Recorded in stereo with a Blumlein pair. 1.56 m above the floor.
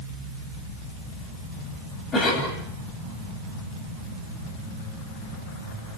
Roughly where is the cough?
Ahead.